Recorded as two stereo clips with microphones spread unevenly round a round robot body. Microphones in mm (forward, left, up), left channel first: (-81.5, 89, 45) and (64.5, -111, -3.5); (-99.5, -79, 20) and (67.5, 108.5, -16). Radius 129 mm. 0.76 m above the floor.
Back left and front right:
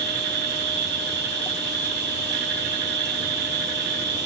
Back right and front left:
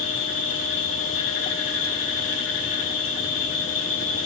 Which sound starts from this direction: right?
An insect, at 0.0 s.